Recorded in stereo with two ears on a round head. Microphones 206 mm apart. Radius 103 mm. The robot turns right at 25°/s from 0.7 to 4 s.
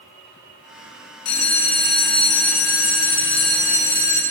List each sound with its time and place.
1.2 s a bell: 75° left, 1.3 m; by 4.2 s 145° left, 1.3 m